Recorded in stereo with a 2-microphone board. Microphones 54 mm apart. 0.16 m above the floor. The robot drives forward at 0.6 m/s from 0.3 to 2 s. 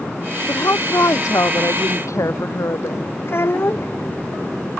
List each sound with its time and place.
0.5 s a woman speaking: 75° left (ahead or behind)
3.2 s a child speaking: 50° left (ahead or behind)